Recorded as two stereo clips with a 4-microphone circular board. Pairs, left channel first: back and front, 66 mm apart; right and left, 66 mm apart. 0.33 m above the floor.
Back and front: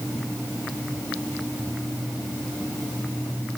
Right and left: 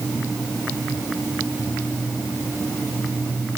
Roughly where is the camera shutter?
No camera shutter in this recording.